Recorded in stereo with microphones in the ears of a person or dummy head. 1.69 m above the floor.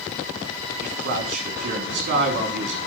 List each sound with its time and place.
0.8 s a man speaking: 55° right (ahead or behind), 3.5 m